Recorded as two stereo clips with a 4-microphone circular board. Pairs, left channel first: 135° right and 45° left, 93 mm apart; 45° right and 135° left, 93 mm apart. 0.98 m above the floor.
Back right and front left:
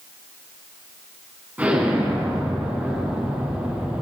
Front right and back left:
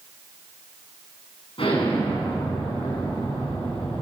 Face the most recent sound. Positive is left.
turn(degrees=-30)